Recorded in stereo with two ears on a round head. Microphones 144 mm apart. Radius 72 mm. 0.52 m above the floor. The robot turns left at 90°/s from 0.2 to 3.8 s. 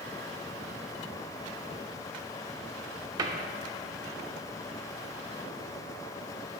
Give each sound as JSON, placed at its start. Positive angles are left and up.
{"t": 3.2, "sound": "a cupboard door", "side_deg": -25, "distance_m": 0.6}